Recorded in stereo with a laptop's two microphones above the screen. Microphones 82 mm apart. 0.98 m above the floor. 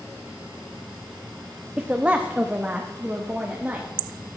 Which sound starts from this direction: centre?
A woman speaking, at 1.8 s.